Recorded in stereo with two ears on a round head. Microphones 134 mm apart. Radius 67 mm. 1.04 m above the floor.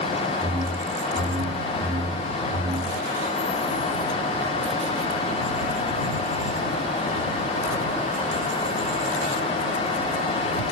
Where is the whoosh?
40° right (ahead or behind).